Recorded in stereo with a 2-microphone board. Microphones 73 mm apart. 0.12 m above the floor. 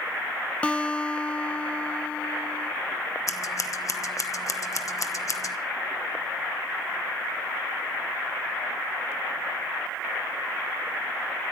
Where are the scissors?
50° left (ahead or behind), 1.0 m.